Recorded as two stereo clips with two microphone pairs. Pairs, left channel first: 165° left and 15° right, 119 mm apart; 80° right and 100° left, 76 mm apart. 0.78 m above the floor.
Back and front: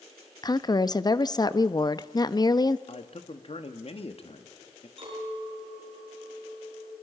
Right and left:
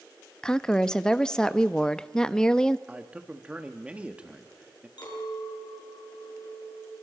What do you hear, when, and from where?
0.4 s a woman speaking: 155° right, 0.6 m
2.9 s a man speaking: 170° left, 1.5 m
5.0 s a clink: 55° right, 6 m